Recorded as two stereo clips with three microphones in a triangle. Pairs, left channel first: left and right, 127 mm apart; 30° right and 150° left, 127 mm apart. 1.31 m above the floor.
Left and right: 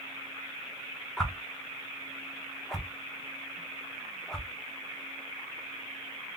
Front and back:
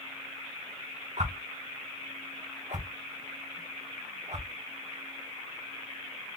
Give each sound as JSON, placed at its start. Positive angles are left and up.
{"t": 1.2, "sound": "a whoosh", "azimuth_deg": 175, "distance_m": 0.9}